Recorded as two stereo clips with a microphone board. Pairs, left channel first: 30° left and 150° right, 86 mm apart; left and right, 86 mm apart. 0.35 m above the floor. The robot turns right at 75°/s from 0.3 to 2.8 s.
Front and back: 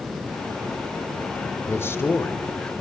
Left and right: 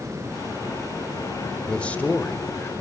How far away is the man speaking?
About 1.5 m.